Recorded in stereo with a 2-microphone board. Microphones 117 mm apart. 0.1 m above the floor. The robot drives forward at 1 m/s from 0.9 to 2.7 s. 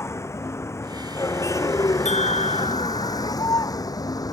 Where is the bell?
75° left (ahead or behind); by 3.4 s 70° left (ahead or behind).